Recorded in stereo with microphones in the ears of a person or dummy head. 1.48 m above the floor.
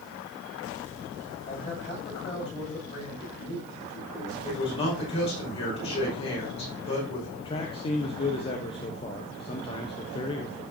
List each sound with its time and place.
1.5 s a man speaking: 35° left (ahead or behind), 7 m
4.4 s a man speaking: 35° left (ahead or behind), 5 m
7.4 s a man speaking: 30° left (ahead or behind), 1.0 m